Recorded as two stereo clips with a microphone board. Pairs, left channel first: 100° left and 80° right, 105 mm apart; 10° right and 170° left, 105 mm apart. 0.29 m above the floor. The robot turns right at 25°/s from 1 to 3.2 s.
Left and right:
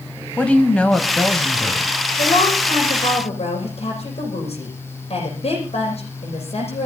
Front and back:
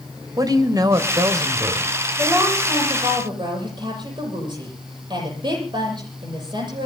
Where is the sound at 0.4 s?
170° left, 1.7 m; by 1.9 s 165° right, 1.7 m.